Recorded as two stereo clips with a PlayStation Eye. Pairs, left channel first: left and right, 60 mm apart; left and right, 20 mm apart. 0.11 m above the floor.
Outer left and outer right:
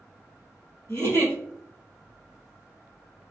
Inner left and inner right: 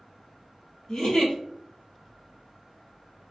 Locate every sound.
0.9 s a giggle: 40° left (ahead or behind), 1.4 m